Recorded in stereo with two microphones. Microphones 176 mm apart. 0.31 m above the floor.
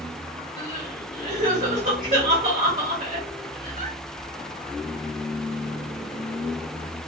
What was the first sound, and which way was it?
Crying, 45° right (ahead or behind).